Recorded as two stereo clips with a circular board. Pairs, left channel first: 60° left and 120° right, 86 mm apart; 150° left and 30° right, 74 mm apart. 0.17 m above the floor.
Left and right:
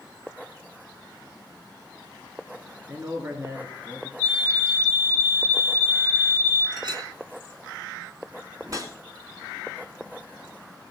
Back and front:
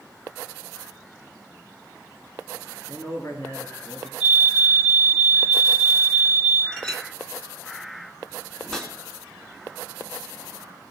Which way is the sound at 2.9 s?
Straight behind.